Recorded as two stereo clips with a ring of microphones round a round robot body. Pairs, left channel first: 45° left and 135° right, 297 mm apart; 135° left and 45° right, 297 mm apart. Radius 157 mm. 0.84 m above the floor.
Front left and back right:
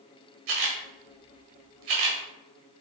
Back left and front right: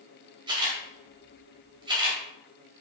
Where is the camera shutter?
120° right, 1.6 m.